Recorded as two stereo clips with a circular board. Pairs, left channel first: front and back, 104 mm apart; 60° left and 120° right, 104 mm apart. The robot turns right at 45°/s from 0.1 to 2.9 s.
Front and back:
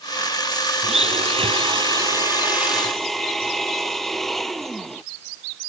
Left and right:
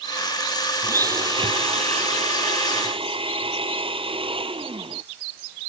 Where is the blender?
Straight behind; by 5.0 s 90° right.